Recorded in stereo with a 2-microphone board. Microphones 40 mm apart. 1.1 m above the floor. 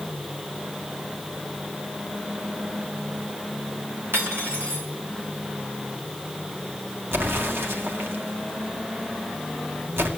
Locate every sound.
4.1 s cutlery clinking: 75° right (ahead or behind), 2.5 m
7.1 s an explosion: 70° right (ahead or behind), 1.9 m